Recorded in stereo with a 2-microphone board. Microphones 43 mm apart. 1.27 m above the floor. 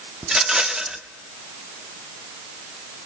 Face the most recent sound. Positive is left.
turn(degrees=-15)  # may be behind; listen again after turning